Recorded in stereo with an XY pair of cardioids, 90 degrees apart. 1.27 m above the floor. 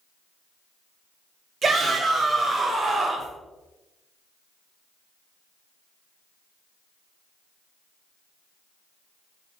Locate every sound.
1.6 s a shout: 50° right, 0.9 m